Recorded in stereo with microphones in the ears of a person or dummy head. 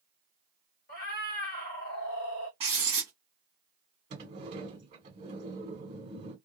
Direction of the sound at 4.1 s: 40° right (ahead or behind).